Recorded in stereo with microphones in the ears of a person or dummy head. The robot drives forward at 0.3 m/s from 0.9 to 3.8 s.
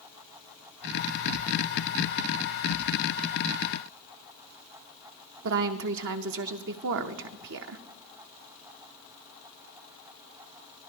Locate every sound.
5.4 s a woman speaking: 60° right (ahead or behind), 0.7 m